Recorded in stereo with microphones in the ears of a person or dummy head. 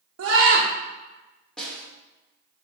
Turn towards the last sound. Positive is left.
turn(degrees=5)  # may be behind; listen again after turning